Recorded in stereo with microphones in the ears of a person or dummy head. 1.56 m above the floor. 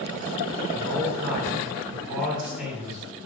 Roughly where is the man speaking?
Centre.